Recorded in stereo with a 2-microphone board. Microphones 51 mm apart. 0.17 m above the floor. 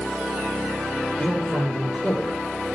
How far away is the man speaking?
About 3 m.